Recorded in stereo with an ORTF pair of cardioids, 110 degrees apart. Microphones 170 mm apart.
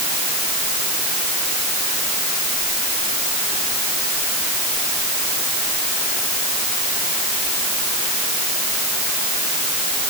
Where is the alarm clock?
No alarm clock in this recording.